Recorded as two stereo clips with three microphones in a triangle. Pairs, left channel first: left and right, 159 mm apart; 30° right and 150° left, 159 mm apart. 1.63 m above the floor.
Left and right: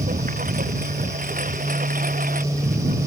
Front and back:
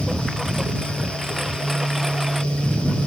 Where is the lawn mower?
120° right.